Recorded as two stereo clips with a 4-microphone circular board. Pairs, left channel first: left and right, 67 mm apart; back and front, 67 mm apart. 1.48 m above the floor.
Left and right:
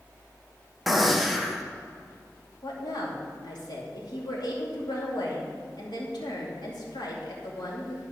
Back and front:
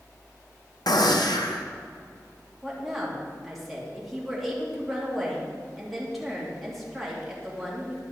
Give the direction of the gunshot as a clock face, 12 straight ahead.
6 o'clock.